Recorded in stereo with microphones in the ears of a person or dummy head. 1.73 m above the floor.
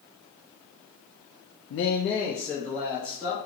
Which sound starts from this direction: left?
A man speaking, at 1.7 s.